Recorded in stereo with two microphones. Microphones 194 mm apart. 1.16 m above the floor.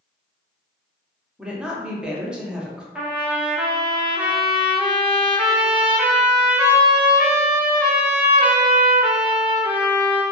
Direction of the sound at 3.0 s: 5° right (ahead or behind).